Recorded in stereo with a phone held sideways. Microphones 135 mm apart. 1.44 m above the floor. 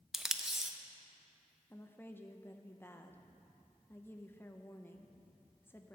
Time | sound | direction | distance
0.1 | tape being pulled | 5° right (ahead or behind) | 0.6 m
1.7 | a woman speaking | 15° left (ahead or behind) | 0.8 m